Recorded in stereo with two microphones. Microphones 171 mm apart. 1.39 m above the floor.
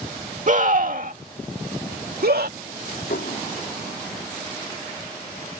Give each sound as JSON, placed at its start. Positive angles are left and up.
{"t": 0.5, "sound": "a scream", "side_deg": -50}
{"t": 3.1, "sound": "dishes clattering", "side_deg": 75}